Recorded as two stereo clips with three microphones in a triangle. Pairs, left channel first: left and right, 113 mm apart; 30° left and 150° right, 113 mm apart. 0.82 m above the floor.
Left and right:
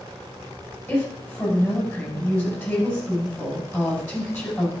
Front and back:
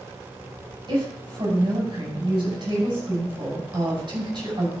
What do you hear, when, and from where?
0.9 s a woman speaking: 155° left, 5.5 m